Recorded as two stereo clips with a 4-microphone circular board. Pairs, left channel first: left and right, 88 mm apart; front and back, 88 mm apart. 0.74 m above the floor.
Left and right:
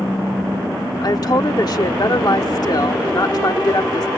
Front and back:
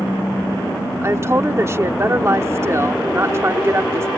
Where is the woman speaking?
125° left.